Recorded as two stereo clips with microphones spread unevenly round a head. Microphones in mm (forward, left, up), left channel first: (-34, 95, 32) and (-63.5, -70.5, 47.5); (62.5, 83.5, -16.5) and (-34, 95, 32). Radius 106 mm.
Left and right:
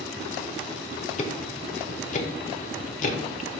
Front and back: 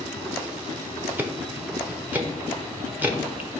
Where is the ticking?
125° left, 0.9 m.